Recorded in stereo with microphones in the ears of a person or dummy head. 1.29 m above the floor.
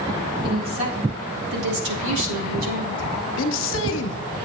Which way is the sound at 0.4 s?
25° right (ahead or behind).